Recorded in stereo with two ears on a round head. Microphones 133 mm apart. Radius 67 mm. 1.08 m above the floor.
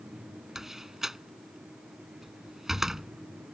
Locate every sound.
0.6 s a door slam: 5° right (ahead or behind)